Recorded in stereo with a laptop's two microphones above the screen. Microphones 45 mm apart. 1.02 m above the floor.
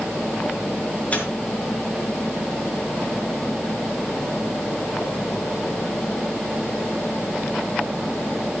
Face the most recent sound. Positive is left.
turn(degrees=35)  # may be behind; listen again after turning